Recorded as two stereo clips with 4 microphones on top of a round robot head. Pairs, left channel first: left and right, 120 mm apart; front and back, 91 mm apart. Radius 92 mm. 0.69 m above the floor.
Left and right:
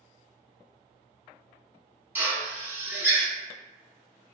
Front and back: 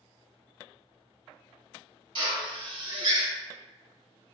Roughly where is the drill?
Behind.